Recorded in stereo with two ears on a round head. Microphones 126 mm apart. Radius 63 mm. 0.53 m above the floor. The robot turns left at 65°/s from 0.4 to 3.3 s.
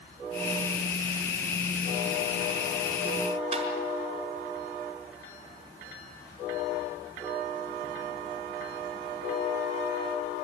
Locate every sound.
3.5 s tapping: 45° right (ahead or behind), 5.5 m